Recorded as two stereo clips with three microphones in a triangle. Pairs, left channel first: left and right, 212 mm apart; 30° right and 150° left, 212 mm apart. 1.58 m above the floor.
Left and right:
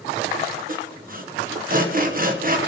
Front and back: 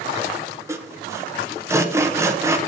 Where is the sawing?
130° right, 0.9 m.